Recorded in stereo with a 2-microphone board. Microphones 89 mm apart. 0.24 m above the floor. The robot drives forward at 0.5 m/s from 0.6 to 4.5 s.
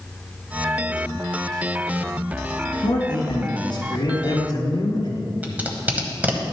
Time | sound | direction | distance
2.8 | a man speaking | 60° left (ahead or behind) | 2.5 m
5.4 | tape being pulled | 20° right (ahead or behind) | 1.1 m